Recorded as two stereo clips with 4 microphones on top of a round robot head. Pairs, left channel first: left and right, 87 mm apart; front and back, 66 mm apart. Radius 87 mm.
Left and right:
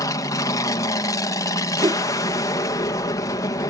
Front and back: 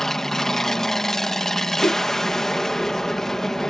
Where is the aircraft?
80° left.